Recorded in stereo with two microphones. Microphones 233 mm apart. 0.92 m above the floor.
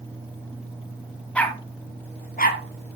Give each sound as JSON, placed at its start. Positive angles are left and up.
{"t": 1.4, "sound": "a dog barking", "side_deg": 5, "distance_m": 2.5}